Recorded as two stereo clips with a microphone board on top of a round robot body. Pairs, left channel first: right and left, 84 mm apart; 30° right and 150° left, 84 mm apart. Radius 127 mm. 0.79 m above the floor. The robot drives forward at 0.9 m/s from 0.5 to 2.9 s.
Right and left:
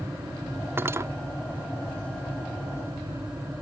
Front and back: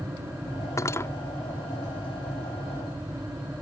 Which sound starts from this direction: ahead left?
Cutlery clinking, at 0.8 s.